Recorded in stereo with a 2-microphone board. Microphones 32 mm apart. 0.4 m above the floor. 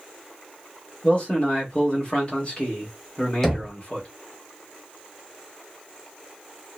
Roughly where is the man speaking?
Left.